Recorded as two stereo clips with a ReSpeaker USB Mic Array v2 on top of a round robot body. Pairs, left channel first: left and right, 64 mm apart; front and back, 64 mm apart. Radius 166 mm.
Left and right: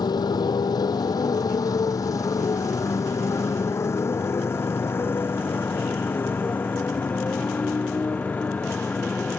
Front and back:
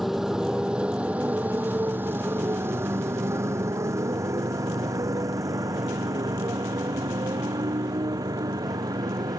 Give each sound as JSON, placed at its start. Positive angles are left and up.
{"t": 0.0, "sound": "a motorcycle", "azimuth_deg": 95}